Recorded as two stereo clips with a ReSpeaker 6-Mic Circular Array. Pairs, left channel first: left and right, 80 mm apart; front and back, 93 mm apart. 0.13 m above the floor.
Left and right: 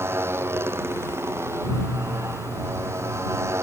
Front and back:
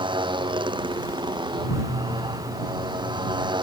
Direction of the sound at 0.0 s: 150° right.